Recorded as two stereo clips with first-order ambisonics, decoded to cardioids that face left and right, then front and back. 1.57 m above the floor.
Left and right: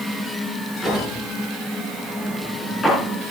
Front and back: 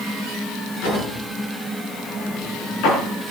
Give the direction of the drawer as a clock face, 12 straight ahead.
12 o'clock.